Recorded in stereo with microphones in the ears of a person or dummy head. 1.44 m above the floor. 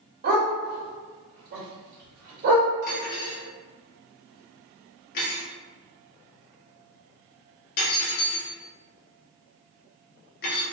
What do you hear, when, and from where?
0.2 s a dog barking: 50° right (ahead or behind), 1.9 m
2.8 s cutlery clinking: 55° left (ahead or behind), 1.4 m